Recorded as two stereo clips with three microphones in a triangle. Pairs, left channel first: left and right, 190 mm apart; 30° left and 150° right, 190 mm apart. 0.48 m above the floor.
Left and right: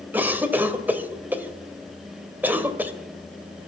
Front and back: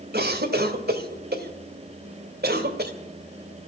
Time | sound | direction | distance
0.1 | a cough | 170° right | 1.9 m